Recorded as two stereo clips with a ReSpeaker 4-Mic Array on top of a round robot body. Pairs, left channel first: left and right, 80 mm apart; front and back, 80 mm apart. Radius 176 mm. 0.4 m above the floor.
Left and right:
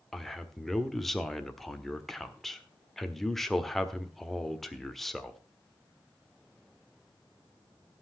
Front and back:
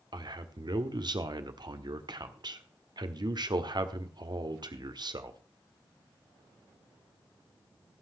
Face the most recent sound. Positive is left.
turn(degrees=180)